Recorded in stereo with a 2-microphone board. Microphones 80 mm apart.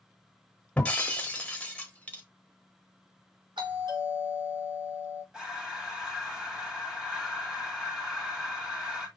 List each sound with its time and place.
0.8 s breaking glass: 20° left (ahead or behind), 1.0 m
3.6 s a doorbell: 80° right, 3.5 m
5.3 s breathing: 5° right (ahead or behind), 2 m